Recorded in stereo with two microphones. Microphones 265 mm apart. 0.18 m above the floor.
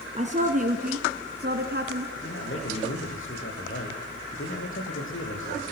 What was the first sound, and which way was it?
A woman speaking, 30° right (ahead or behind).